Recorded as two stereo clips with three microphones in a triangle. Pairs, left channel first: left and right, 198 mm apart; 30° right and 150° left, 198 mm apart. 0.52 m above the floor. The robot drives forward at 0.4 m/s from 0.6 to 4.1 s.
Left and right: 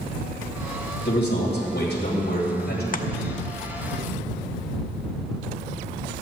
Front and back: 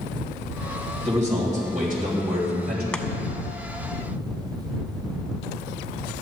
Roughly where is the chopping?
Ahead left.